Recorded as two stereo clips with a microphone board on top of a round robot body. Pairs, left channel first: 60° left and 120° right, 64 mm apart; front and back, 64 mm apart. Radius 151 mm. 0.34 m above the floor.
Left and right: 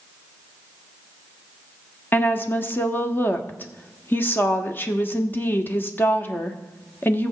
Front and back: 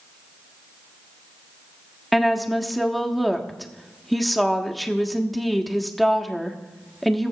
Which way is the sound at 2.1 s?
90° left.